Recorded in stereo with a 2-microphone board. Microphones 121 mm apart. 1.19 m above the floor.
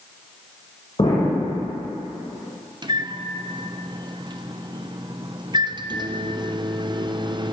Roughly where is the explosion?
Left.